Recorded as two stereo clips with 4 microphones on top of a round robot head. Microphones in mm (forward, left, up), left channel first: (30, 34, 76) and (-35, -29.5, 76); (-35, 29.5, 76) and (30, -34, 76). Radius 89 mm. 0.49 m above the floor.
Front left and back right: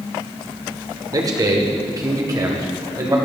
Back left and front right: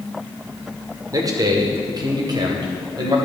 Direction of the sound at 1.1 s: 90° right.